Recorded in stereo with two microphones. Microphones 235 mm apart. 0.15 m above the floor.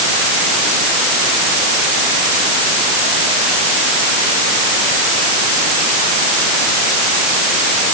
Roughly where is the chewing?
No chewing in this recording.